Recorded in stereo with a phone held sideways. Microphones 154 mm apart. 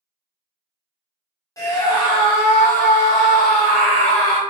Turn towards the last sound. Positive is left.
turn(degrees=35)  # may be behind; listen again after turning